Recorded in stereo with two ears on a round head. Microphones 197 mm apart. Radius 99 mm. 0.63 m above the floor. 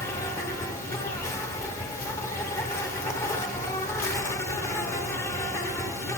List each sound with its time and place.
0.0 s an insect: 15° left (ahead or behind), 0.8 m